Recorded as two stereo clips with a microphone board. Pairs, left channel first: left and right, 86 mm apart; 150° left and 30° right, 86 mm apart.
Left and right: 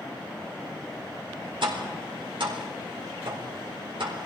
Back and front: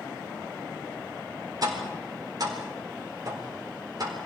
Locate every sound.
1.6 s tapping: 75° right, 4 m